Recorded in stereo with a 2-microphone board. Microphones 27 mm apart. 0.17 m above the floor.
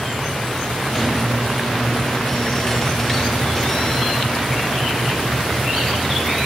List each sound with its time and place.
0.9 s a squeak: 15° left (ahead or behind), 7 m